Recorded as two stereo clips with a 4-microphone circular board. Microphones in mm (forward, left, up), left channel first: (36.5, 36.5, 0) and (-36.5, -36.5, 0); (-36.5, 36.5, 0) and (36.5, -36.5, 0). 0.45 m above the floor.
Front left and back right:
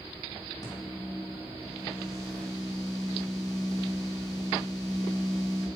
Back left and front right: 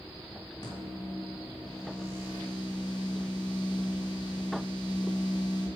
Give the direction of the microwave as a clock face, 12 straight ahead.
9 o'clock.